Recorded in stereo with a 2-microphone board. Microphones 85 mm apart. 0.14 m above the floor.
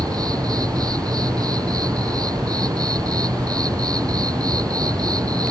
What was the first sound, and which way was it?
An insect, 45° right (ahead or behind).